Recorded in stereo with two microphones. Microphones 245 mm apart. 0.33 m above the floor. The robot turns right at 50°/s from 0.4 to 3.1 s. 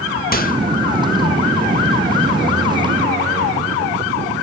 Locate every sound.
0.3 s a microwave: 35° left (ahead or behind), 0.9 m